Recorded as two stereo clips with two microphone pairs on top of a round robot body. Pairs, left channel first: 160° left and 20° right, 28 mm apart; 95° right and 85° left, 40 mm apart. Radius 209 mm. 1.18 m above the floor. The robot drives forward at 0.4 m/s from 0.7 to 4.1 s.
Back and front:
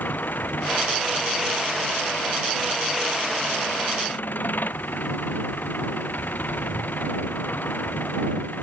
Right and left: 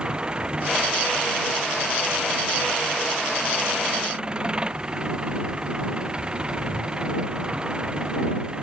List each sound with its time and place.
0.0 s an engine running: 155° left